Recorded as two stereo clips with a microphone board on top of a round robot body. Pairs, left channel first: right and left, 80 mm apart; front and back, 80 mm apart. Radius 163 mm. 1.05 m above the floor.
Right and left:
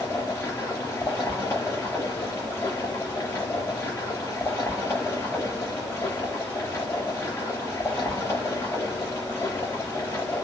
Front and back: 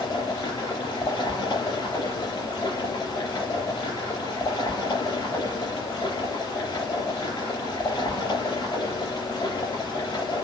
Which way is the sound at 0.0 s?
25° right.